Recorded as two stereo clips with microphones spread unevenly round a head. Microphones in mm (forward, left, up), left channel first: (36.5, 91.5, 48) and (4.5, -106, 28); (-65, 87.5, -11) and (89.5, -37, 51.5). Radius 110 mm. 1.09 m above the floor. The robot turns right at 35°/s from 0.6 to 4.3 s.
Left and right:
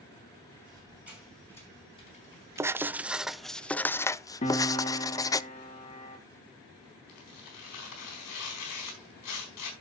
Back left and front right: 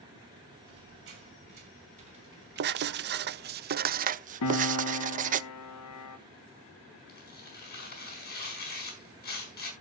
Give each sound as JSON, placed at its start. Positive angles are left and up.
{"t": 0.7, "sound": "a squeak", "azimuth_deg": -30, "distance_m": 5.0}
{"t": 2.6, "sound": "writing", "azimuth_deg": -50, "distance_m": 0.5}
{"t": 4.4, "sound": "a piano", "azimuth_deg": 140, "distance_m": 1.1}
{"t": 7.1, "sound": "tearing paper", "azimuth_deg": 95, "distance_m": 4.5}